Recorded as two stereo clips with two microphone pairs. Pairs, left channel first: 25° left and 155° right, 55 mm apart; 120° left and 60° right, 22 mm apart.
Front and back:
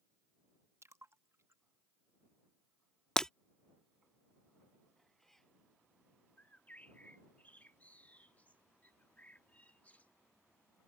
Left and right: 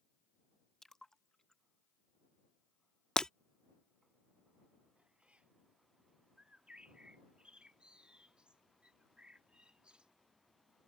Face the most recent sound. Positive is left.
turn(degrees=-35)